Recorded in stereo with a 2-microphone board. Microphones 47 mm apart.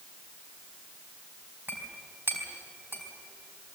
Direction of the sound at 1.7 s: 50° right (ahead or behind).